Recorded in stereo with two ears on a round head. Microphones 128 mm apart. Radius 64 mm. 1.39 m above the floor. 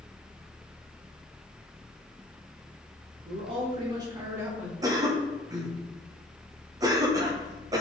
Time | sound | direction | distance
3.2 | a man speaking | 45° right (ahead or behind) | 3 m
4.8 | a cough | 25° right (ahead or behind) | 1.5 m